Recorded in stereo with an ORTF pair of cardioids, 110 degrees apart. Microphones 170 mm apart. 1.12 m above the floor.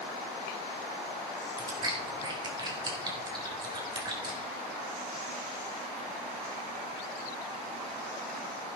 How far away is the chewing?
About 3.5 m.